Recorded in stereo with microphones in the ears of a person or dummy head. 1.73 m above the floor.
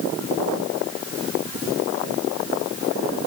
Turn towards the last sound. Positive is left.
No sound to turn to.